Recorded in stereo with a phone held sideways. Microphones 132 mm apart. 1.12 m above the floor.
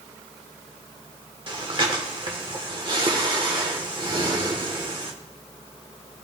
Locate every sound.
1.5 s breathing: 40° right (ahead or behind), 1.2 m